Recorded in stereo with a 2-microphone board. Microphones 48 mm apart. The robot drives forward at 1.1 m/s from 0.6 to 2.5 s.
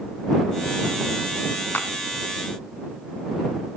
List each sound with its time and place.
1.7 s a clap: 45° left (ahead or behind), 1.6 m